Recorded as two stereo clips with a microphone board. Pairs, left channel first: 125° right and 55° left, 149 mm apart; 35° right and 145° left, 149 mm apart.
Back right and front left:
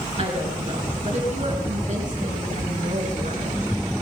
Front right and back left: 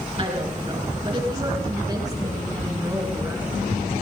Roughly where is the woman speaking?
Left.